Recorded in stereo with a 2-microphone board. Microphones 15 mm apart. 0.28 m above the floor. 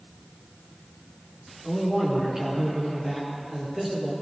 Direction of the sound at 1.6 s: 30° right (ahead or behind).